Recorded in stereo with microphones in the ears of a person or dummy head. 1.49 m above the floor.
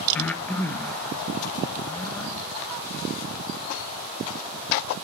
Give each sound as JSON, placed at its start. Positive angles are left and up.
{"t": 0.1, "sound": "breathing", "side_deg": 5, "distance_m": 1.2}